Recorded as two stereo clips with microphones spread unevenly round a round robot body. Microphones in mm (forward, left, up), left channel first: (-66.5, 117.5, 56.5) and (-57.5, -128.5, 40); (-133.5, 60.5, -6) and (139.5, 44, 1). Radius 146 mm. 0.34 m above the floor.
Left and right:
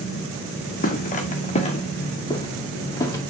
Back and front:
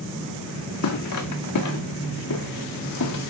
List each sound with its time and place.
0.8 s footsteps: 145° left, 1.8 m; by 3.2 s 170° left, 2.5 m